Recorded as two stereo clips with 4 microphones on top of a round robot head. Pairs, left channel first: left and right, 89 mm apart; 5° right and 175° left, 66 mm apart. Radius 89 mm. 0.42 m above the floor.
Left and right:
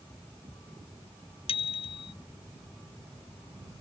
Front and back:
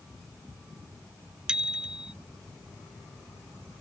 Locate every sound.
1.5 s a bicycle bell: 95° left